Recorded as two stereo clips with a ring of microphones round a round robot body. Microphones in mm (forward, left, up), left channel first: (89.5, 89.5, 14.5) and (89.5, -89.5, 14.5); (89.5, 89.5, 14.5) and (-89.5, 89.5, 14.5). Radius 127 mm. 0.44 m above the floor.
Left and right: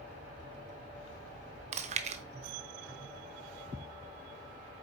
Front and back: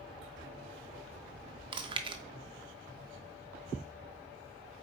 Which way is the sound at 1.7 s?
125° right.